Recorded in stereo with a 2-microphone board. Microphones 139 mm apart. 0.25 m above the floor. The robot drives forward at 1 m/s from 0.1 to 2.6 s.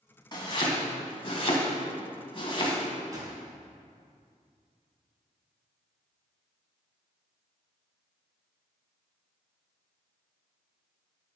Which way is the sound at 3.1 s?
25° right (ahead or behind).